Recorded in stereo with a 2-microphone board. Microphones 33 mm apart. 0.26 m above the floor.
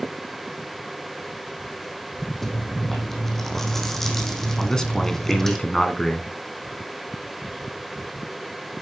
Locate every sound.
2.4 s chewing: 10° left (ahead or behind), 2 m
4.6 s a man speaking: 15° left (ahead or behind), 2 m